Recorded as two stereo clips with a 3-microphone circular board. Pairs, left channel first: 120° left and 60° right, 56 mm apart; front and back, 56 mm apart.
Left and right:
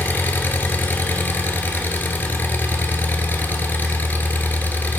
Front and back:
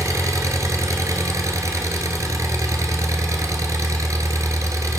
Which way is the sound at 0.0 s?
175° left.